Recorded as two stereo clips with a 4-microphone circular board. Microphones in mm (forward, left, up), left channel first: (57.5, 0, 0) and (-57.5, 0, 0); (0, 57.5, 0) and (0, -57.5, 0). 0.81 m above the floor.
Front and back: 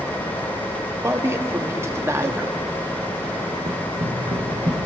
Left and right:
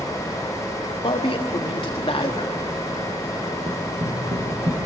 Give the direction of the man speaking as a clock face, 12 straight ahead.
8 o'clock.